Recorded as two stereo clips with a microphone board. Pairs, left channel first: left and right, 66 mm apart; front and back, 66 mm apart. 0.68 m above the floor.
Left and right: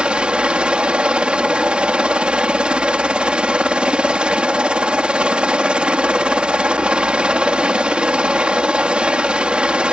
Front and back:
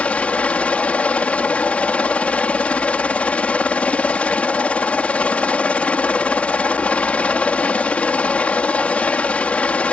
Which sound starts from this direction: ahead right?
A helicopter, at 0.0 s.